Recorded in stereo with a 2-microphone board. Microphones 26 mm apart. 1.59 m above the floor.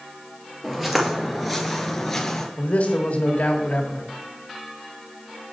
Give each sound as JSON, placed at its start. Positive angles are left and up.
{"t": 0.6, "sound": "footsteps", "side_deg": -15, "distance_m": 1.8}
{"t": 2.6, "sound": "a man speaking", "side_deg": 75, "distance_m": 1.6}